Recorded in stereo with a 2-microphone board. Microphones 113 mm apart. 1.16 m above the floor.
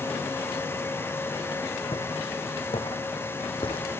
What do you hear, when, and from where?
1.9 s footsteps: 50° left (ahead or behind), 3.5 m